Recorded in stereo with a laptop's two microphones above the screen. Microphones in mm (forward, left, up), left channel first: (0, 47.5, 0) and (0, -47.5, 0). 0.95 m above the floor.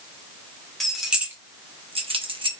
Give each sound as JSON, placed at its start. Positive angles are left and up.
{"t": 0.8, "sound": "keys jangling", "side_deg": 0, "distance_m": 1.2}